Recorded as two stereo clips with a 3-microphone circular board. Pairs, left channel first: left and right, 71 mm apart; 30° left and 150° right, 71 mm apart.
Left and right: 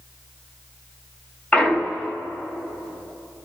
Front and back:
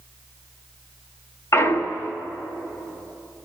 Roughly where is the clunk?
Ahead left.